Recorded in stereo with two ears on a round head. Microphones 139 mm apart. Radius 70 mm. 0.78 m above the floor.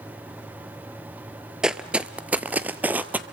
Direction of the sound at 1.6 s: 5° right (ahead or behind).